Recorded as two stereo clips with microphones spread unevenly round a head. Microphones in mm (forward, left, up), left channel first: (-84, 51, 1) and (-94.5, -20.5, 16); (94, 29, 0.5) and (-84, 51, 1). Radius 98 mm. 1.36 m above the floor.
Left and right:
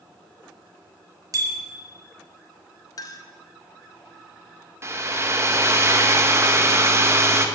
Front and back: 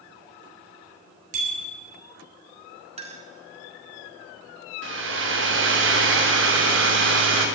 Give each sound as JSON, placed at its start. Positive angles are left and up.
{"t": 1.3, "sound": "a bicycle bell", "azimuth_deg": -130, "distance_m": 3.0}
{"t": 3.0, "sound": "a clink", "azimuth_deg": 115, "distance_m": 1.5}
{"t": 4.8, "sound": "a hair dryer", "azimuth_deg": -150, "distance_m": 1.6}